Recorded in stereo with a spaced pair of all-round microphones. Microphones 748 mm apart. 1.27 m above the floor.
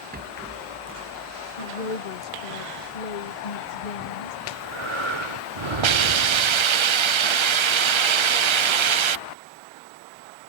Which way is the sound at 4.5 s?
40° right (ahead or behind).